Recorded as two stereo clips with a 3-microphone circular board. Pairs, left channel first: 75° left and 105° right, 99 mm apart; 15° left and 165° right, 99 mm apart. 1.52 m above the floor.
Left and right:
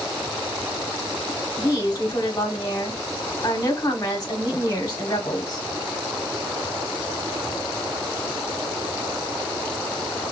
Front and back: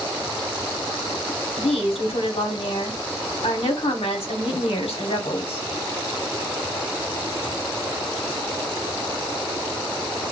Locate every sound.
1.6 s a woman speaking: 20° left, 1.0 m